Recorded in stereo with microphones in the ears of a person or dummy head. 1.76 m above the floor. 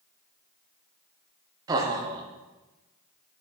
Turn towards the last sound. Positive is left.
turn(degrees=-20)  # may be behind; listen again after turning